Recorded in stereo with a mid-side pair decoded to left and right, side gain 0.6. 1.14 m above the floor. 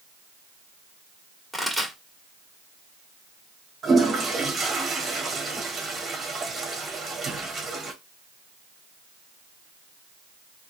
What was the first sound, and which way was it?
A pop, straight ahead.